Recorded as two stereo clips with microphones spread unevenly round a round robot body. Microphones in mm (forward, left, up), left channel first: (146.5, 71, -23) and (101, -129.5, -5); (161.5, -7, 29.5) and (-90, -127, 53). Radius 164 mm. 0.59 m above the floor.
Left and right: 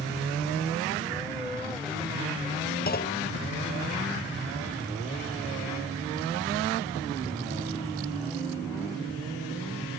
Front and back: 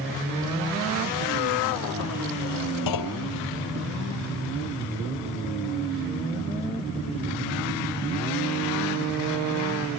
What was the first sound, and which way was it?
A clunk, 35° left.